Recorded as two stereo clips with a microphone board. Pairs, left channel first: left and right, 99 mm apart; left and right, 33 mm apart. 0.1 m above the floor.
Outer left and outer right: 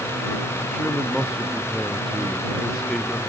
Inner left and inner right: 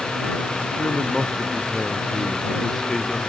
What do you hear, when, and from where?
0.7 s a man speaking: 5° left (ahead or behind)